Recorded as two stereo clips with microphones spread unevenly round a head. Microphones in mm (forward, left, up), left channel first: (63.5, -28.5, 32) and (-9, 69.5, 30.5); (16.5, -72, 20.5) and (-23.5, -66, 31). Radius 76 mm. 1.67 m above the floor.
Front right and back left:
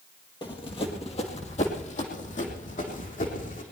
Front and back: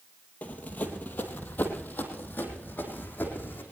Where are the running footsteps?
50° right, 1.9 m.